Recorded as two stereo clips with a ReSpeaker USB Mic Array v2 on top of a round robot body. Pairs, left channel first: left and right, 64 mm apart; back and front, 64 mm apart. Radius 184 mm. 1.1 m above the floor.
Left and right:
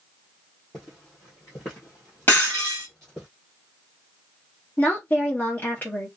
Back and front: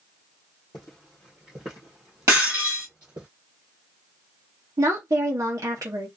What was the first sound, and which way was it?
Footsteps, 155° left.